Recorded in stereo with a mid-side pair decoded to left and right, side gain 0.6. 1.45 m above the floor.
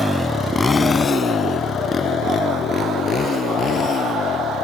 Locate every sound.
0.0 s a motorcycle: 10° left; by 4.6 s 40° left